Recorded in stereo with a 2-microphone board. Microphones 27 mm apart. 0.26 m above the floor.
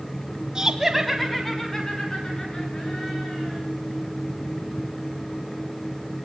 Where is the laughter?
30° right (ahead or behind), 1.3 m; by 3.6 s 35° left (ahead or behind), 4.5 m.